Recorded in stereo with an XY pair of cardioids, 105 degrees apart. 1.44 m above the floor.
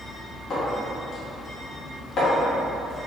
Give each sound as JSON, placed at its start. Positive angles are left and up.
{"t": 0.5, "sound": "a clink", "azimuth_deg": 60, "distance_m": 0.9}